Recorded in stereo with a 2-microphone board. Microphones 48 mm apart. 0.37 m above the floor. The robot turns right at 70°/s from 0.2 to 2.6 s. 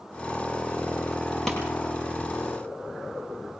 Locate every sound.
1.5 s a pop: 10° left (ahead or behind), 7.5 m; by 1.6 s centre (ahead or behind), 7.5 m